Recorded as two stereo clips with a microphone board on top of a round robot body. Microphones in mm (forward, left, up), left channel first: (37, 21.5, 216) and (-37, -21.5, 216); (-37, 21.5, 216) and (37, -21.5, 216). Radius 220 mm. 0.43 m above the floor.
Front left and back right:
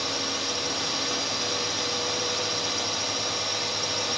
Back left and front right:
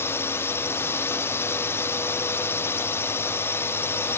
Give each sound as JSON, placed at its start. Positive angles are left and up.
{"t": 0.0, "sound": "a drone", "azimuth_deg": 120}